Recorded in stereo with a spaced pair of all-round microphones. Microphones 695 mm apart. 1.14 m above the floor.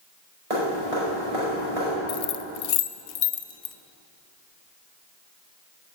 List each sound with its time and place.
0.5 s dripping: 60° right (ahead or behind), 4.5 m
2.1 s keys jangling: 65° left (ahead or behind), 0.6 m